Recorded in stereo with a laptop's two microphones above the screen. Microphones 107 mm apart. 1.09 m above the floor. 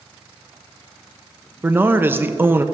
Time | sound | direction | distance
1.6 | a man speaking | 20° right (ahead or behind) | 0.9 m